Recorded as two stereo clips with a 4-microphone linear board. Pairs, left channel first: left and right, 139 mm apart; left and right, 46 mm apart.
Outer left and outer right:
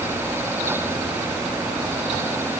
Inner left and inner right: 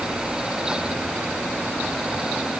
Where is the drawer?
I don't hear a drawer.